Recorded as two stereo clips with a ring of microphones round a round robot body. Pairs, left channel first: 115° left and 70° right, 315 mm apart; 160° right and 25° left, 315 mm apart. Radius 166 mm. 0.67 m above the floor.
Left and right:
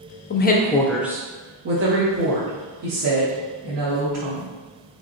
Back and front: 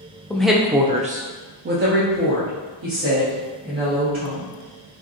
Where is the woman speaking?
120° left, 0.6 m; by 4.5 s 30° right, 2.0 m.